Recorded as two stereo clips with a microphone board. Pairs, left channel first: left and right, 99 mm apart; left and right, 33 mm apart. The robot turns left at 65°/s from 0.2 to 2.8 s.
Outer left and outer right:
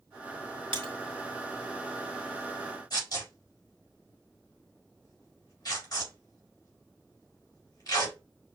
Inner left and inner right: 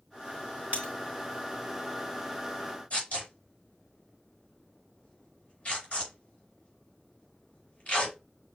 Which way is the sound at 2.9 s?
40° left (ahead or behind).